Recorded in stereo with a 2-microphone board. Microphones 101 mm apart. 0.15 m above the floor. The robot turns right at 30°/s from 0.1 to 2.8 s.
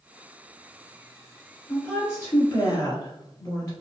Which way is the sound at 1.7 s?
20° left.